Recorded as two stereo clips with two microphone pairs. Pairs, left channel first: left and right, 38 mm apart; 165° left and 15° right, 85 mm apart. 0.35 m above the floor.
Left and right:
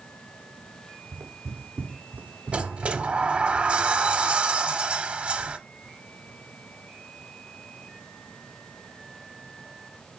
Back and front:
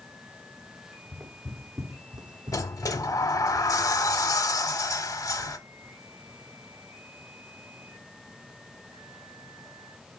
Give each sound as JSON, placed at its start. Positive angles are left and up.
{"t": 1.1, "sound": "footsteps", "azimuth_deg": -90, "distance_m": 1.9}
{"t": 2.5, "sound": "a sliding door", "azimuth_deg": -145, "distance_m": 0.6}